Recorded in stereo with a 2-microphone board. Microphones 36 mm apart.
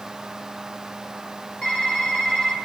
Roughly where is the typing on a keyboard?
Left.